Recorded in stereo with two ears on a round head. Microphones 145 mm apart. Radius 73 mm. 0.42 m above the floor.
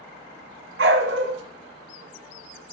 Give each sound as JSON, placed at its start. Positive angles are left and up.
{"t": 0.8, "sound": "a dog barking", "side_deg": -75, "distance_m": 2.0}